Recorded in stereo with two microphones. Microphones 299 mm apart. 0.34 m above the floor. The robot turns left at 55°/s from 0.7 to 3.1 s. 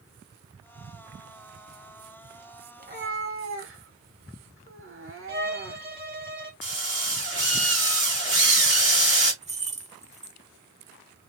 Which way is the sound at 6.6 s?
40° right (ahead or behind).